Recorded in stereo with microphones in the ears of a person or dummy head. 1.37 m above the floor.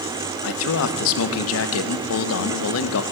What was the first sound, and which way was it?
A man speaking, 70° left (ahead or behind).